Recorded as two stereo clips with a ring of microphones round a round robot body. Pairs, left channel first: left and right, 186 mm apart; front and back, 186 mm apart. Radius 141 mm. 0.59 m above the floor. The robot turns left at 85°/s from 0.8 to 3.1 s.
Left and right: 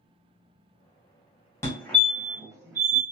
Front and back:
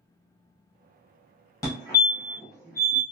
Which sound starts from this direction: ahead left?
A fire alarm, at 1.6 s.